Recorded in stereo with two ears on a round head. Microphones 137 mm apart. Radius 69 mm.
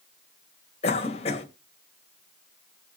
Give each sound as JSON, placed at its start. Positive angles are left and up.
{"t": 0.8, "sound": "a cough", "side_deg": 45, "distance_m": 2.5}